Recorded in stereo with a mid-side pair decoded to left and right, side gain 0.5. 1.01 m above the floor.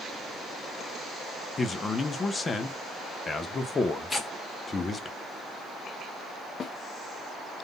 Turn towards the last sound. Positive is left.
turn(degrees=45)